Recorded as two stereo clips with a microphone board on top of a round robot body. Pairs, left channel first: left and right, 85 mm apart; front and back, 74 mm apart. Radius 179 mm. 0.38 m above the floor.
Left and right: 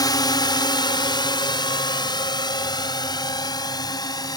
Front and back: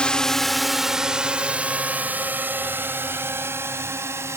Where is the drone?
75° left; by 4.4 s 130° left.